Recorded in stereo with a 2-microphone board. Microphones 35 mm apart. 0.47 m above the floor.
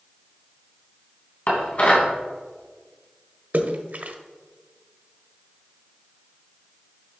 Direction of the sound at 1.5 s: 45° left (ahead or behind).